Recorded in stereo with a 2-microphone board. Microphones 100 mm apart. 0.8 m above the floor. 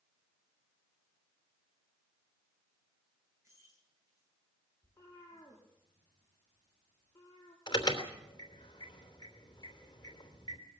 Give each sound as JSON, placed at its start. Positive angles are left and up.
{"t": 3.4, "sound": "keys jangling", "side_deg": -30, "distance_m": 9.5}
{"t": 4.8, "sound": "a cat meowing", "side_deg": 25, "distance_m": 6.0}
{"t": 7.7, "sound": "an alarm", "side_deg": 45, "distance_m": 3.0}